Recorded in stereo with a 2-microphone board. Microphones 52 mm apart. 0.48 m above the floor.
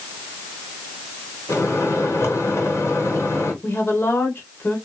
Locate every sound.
1.5 s a microwave: 70° left (ahead or behind), 2.5 m
3.6 s a woman speaking: 50° left (ahead or behind), 2 m